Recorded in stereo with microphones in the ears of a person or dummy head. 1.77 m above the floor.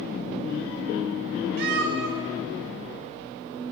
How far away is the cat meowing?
About 2.5 m.